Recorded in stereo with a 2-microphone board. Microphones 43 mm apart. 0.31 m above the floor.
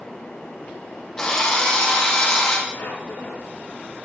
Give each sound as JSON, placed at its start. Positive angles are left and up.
{"t": 1.2, "sound": "a drill", "side_deg": 15, "distance_m": 5.5}
{"t": 2.7, "sound": "a squeak", "side_deg": 85, "distance_m": 6.0}